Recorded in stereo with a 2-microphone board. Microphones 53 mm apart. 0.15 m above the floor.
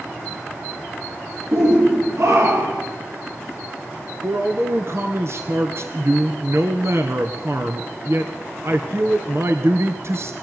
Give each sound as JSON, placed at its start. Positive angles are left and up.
{"t": 1.5, "sound": "a shout", "side_deg": -60, "distance_m": 4.5}
{"t": 4.2, "sound": "a man speaking", "side_deg": -50, "distance_m": 1.9}